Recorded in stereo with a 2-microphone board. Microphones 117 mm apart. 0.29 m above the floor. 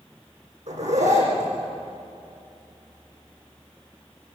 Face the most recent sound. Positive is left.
turn(degrees=-80)